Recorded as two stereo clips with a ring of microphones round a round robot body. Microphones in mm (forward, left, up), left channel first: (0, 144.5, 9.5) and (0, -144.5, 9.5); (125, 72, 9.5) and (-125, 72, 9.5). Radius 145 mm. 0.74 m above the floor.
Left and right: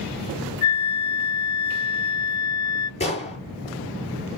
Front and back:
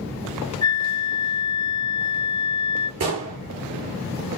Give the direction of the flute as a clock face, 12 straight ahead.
10 o'clock.